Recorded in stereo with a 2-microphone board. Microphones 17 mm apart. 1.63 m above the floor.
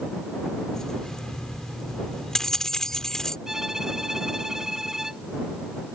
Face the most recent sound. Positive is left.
turn(degrees=-35)  # may be behind; listen again after turning